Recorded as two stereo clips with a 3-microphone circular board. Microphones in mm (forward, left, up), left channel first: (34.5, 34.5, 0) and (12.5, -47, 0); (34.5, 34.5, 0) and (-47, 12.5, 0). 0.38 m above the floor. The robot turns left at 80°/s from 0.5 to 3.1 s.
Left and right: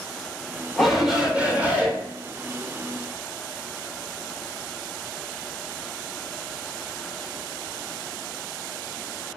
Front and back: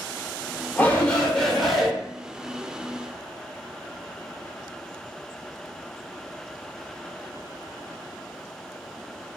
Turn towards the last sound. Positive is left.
turn(degrees=165)